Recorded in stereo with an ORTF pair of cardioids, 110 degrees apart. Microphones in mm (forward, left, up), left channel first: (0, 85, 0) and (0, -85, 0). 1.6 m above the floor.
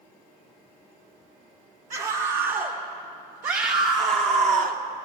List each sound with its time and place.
1.9 s a scream: 55° right, 2.5 m; by 4.8 s 70° right, 1.3 m